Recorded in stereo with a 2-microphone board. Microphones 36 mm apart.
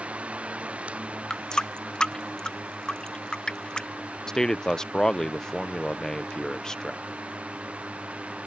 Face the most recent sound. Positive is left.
turn(degrees=15)  # may be behind; listen again after turning